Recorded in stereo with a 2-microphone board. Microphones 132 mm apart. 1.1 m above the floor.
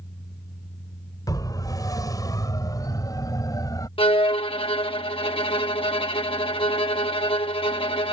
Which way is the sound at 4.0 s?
45° left (ahead or behind).